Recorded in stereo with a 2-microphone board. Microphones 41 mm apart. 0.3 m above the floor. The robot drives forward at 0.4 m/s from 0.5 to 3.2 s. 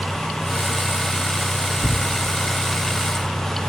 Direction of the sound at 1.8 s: 70° left (ahead or behind).